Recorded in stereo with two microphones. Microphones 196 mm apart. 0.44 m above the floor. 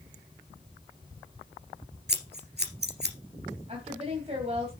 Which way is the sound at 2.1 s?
60° right (ahead or behind).